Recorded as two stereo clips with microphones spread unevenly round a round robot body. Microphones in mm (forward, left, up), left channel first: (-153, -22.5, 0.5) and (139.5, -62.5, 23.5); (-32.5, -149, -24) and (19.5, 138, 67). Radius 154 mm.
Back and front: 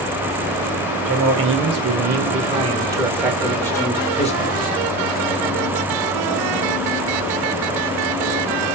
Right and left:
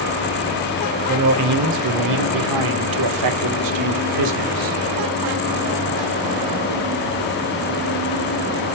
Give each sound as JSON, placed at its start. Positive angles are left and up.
{"t": 1.1, "sound": "a man speaking", "azimuth_deg": 35, "distance_m": 1.9}